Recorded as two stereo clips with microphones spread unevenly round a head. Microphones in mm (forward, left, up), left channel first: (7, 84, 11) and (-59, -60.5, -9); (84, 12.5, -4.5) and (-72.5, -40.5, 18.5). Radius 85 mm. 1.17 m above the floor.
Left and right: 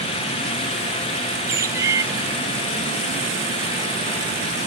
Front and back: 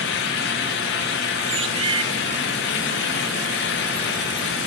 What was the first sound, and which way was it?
A bird, 175° left.